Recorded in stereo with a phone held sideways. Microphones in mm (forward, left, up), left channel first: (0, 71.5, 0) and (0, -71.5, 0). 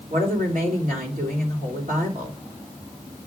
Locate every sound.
0.1 s a woman speaking: 80° right, 3 m